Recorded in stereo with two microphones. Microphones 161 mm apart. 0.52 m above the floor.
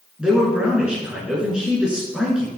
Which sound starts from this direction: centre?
A man speaking, at 0.2 s.